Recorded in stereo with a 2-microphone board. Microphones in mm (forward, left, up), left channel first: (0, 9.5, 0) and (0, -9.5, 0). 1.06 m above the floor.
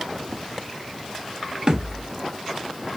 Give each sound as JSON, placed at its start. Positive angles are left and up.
{"t": 1.7, "sound": "a thud", "side_deg": -35, "distance_m": 0.8}